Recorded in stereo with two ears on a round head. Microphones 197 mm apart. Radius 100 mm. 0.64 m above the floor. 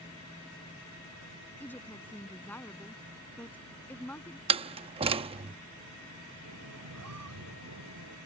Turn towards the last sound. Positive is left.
turn(degrees=-80)